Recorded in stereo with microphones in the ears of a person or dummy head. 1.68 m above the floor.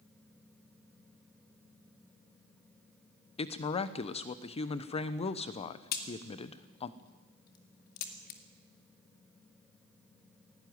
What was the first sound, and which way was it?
A woman speaking, 30° left (ahead or behind).